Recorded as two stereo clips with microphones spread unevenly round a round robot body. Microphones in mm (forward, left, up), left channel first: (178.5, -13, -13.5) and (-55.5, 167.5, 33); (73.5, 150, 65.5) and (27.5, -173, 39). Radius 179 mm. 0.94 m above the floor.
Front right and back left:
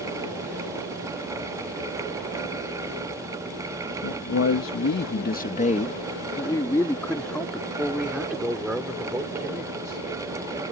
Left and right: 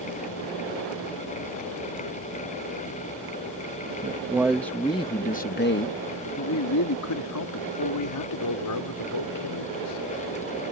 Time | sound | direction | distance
4.0 | a man speaking | 25° right | ?